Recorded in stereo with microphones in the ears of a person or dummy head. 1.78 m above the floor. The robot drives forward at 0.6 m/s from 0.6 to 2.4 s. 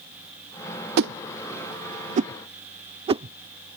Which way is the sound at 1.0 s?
60° right (ahead or behind).